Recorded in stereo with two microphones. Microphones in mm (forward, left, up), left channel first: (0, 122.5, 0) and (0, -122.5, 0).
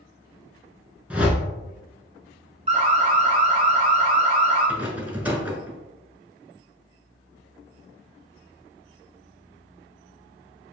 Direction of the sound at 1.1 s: 5° right (ahead or behind).